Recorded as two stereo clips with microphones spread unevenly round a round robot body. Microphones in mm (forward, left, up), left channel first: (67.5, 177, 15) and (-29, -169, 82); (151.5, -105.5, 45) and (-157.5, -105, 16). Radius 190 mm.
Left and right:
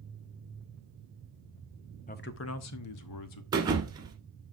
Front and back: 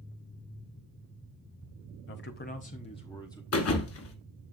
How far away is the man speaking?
About 0.6 m.